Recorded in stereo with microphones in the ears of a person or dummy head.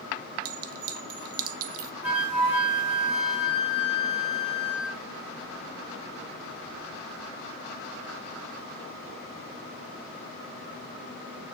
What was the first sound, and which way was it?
A clink, 60° right (ahead or behind).